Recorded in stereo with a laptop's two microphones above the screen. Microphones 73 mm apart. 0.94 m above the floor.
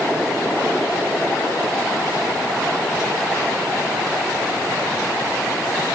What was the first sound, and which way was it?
Only background noise.